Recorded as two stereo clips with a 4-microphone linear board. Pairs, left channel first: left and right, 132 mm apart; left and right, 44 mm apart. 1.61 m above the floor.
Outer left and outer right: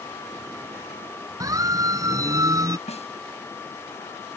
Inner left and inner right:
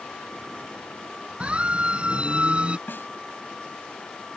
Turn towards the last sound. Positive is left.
turn(degrees=55)  # may be behind; listen again after turning